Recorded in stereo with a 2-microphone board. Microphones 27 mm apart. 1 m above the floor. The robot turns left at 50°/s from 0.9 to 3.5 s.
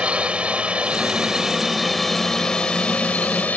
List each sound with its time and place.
0.0 s a drone: 130° right; by 3.6 s 100° left